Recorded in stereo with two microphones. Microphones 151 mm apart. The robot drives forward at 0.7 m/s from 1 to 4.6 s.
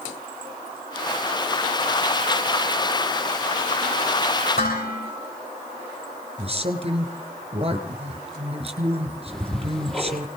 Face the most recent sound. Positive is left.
turn(degrees=5)  # may be behind; listen again after turning